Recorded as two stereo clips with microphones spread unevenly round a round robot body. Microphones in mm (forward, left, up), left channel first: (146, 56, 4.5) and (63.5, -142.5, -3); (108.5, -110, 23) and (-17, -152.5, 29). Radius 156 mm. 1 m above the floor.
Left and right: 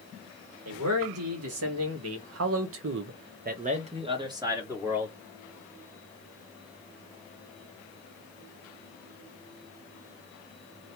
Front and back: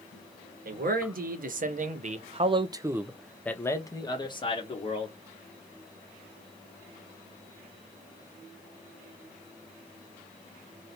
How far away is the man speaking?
About 1.4 m.